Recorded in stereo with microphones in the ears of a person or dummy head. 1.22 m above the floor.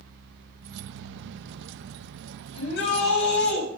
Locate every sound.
0.6 s keys jangling: 65° right (ahead or behind), 0.7 m
2.5 s a shout: 70° left (ahead or behind), 7 m